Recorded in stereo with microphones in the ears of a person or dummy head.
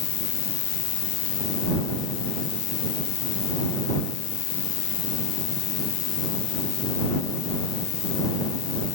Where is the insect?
35° left (ahead or behind).